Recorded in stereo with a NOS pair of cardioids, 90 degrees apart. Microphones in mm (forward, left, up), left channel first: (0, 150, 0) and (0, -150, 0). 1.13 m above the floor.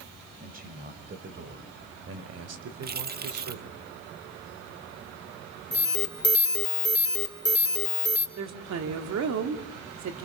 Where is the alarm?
35° left, 3.5 m.